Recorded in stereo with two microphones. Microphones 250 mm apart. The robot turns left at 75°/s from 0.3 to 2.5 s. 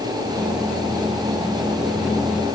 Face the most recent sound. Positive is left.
No sound to turn to.